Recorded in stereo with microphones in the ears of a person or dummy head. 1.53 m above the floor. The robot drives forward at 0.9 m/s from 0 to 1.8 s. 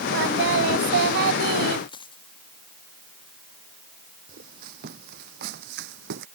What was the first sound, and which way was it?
Singing, 70° right (ahead or behind).